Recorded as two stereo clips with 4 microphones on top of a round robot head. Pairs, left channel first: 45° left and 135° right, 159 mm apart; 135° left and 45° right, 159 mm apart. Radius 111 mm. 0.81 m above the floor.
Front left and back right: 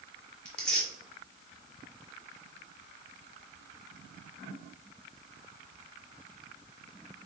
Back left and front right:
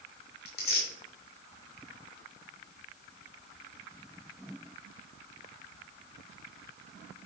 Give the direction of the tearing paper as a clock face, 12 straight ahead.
8 o'clock.